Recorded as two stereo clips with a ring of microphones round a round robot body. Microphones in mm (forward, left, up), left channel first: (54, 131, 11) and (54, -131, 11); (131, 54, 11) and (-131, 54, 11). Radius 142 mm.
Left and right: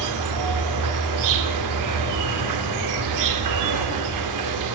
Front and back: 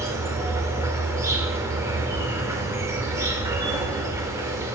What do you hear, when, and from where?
0.0 s an insect: 100° right, 0.8 m